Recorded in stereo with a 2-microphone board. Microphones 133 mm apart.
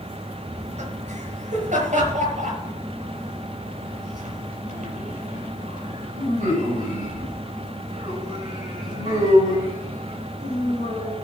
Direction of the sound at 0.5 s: 65° right (ahead or behind).